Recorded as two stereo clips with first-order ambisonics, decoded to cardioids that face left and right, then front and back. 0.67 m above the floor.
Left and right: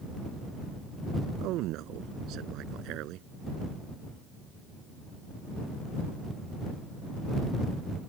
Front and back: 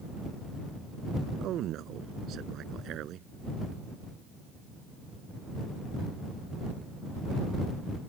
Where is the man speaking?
130° right.